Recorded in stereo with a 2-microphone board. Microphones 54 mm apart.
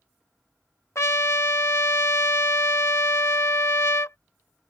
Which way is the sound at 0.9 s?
55° left (ahead or behind).